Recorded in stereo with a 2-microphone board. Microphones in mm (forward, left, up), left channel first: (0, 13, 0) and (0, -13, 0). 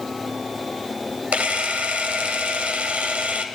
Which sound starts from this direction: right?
A camera shutter, at 1.3 s.